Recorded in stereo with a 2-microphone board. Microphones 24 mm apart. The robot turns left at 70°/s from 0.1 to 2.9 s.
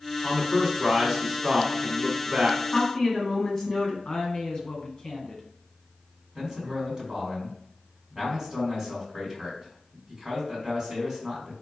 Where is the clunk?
I don't hear a clunk.